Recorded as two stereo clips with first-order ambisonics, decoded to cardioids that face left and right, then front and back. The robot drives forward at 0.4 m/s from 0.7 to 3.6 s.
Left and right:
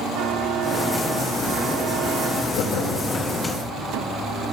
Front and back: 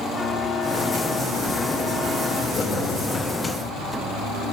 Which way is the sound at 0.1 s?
75° right.